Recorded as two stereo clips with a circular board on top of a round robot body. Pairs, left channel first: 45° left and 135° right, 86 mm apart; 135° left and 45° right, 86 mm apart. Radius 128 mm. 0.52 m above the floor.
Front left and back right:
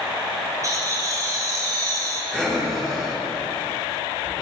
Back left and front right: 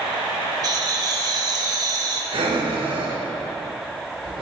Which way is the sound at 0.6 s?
85° right.